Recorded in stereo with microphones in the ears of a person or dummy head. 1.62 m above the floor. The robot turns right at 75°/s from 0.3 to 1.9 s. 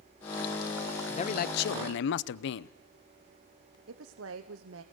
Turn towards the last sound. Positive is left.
turn(degrees=-80)